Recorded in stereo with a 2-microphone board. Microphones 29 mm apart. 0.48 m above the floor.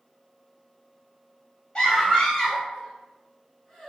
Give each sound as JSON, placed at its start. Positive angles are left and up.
{"t": 1.8, "sound": "a scream", "side_deg": 35, "distance_m": 1.5}